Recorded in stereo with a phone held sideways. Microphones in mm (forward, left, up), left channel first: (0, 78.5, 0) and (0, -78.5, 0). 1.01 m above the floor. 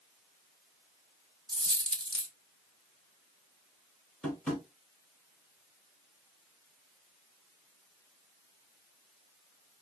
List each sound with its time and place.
1.5 s a dropped coin: 30° right (ahead or behind), 0.8 m
4.2 s tapping: 5° left (ahead or behind), 1.7 m